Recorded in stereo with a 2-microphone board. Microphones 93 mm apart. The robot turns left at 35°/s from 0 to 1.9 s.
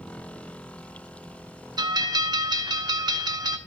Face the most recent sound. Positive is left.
turn(degrees=-50)  # may be behind; listen again after turning